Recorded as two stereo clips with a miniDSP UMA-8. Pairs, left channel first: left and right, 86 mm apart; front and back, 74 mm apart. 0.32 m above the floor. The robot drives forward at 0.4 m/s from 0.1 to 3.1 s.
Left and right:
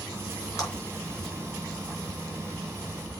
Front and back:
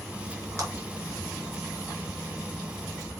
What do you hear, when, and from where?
0.6 s a clap: 135° left, 4 m